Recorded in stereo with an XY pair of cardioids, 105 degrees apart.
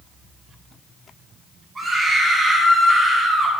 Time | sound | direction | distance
1.8 | a scream | 25° right | 6 m